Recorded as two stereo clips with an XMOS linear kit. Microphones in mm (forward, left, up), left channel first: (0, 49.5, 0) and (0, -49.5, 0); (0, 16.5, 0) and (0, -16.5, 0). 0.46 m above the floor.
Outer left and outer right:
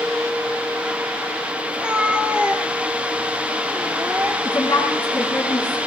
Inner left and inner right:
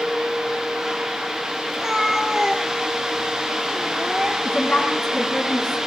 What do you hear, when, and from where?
1.7 s a cat meowing: 10° right (ahead or behind), 3 m
4.5 s a woman speaking: 45° left (ahead or behind), 8 m